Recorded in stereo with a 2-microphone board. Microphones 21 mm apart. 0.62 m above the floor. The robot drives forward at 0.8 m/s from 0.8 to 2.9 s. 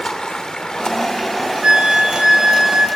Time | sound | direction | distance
0.0 | running water | 40° left (ahead or behind) | 1.0 m
1.6 | a flute | 65° right (ahead or behind) | 1.2 m